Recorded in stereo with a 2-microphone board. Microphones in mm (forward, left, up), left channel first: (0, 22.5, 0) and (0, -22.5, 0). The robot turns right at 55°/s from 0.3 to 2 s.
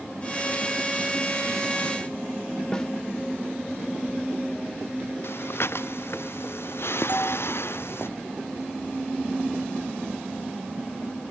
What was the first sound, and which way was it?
A snare drum, 20° left (ahead or behind).